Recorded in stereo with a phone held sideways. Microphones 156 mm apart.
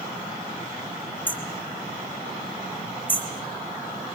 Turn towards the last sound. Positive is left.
turn(degrees=10)  # may be behind; listen again after turning